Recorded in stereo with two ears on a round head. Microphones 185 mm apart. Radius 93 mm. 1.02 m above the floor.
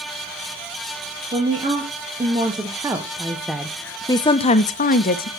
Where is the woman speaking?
25° right (ahead or behind), 1.7 m; by 5.3 s 45° left (ahead or behind), 0.8 m.